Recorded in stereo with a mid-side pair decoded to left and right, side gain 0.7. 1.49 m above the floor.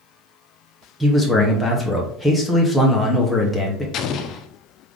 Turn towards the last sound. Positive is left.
turn(degrees=50)